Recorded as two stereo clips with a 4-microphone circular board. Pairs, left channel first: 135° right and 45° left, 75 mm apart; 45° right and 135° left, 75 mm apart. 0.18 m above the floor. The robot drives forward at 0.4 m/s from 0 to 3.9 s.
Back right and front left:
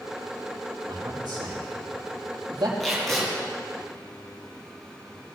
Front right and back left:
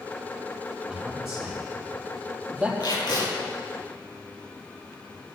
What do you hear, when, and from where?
0.9 s a man speaking: 50° left, 5 m; by 2.7 s 60° left, 4.5 m
2.8 s tape being pulled: 45° right, 5.5 m; by 3.3 s 50° right, 5.5 m